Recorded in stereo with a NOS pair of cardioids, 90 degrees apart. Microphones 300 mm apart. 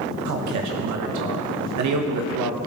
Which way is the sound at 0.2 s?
70° right.